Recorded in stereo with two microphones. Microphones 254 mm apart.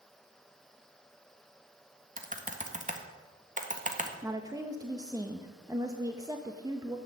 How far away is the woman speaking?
About 0.9 m.